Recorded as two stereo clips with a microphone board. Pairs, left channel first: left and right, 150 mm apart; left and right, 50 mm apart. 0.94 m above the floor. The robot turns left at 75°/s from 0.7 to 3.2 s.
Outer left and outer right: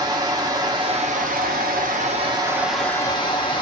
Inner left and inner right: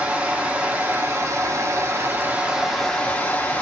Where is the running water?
25° right, 0.8 m; by 3.6 s 145° left, 0.8 m.